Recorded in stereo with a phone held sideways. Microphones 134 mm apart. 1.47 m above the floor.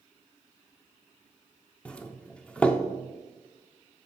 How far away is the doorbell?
About 0.5 m.